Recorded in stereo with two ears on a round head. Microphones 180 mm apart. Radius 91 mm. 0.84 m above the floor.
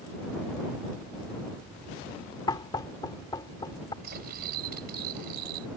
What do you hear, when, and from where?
2.5 s knocking: 20° left (ahead or behind)
4.0 s cutlery clinking: 50° right (ahead or behind)